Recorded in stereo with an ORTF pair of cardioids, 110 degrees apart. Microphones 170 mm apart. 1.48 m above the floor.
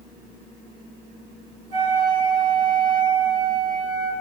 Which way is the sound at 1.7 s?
45° right.